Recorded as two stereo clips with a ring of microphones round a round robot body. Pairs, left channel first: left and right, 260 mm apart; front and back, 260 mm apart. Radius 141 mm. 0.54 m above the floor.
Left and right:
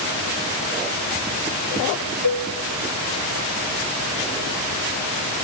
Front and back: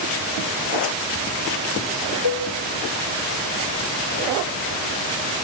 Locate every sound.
2.2 s a cowbell: 125° left, 1.8 m